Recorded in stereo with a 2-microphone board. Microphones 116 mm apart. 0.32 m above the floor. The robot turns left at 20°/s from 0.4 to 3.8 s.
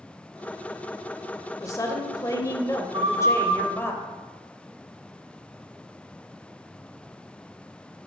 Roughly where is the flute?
Right.